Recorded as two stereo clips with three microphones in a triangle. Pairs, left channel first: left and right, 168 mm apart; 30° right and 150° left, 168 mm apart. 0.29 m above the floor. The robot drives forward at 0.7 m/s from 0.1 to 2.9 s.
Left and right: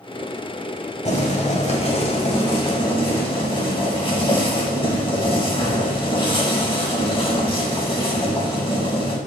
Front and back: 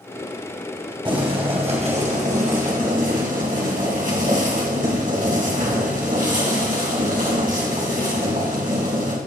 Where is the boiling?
105° left, 1.9 m; by 9.2 s 140° left, 2.5 m.